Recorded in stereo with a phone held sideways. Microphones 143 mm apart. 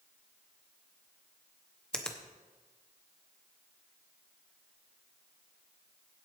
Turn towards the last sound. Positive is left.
turn(degrees=5)  # may be behind; listen again after turning